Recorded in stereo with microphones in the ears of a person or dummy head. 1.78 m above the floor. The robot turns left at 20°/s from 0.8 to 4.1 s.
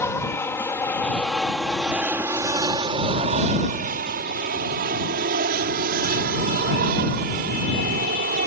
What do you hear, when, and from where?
0.0 s an aircraft: 15° left (ahead or behind); by 8.5 s 50° right (ahead or behind)